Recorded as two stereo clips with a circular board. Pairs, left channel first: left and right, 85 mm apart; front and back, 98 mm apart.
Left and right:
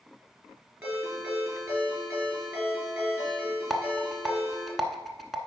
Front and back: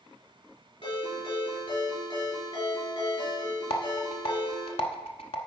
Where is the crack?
I don't hear a crack.